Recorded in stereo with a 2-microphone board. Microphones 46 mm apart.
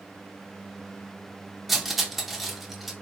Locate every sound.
1.7 s cutlery clinking: 5° right (ahead or behind), 0.6 m